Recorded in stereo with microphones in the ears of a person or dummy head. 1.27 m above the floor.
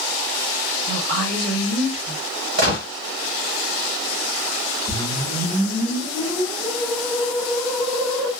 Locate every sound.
0.9 s a woman speaking: 50° right (ahead or behind), 3.5 m
2.6 s a gunshot: 60° right (ahead or behind), 2.0 m
4.9 s a whoosh: 25° right (ahead or behind), 3 m